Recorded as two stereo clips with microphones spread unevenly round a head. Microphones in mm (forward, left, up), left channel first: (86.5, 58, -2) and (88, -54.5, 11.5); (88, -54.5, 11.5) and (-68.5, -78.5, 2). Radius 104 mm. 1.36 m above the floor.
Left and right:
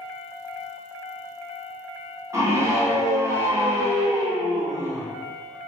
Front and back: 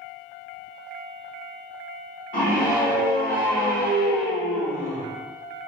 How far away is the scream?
About 1.3 m.